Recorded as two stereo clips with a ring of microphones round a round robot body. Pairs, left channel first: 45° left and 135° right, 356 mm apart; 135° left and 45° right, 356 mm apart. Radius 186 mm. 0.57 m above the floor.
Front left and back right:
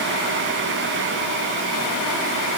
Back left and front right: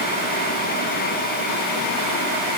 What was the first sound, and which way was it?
Only background noise.